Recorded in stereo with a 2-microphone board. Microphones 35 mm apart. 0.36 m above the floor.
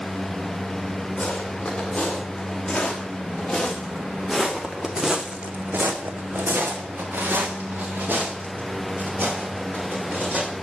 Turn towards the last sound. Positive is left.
turn(degrees=-50)  # may be behind; listen again after turning